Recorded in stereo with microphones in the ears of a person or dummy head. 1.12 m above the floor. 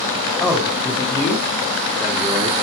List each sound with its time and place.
0.4 s a man speaking: 15° left (ahead or behind), 3.5 m; by 2.5 s 30° right (ahead or behind), 0.9 m